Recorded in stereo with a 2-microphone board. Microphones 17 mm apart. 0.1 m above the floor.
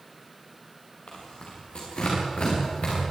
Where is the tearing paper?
75° left (ahead or behind), 9.5 m.